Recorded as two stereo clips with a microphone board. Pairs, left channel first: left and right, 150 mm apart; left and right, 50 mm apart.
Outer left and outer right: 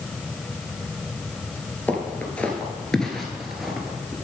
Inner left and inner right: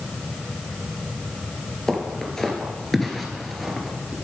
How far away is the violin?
No violin in this recording.